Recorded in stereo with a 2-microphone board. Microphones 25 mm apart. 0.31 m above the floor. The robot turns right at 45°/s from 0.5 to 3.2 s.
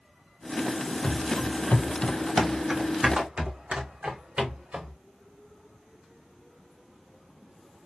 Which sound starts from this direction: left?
Running footsteps, at 1.0 s.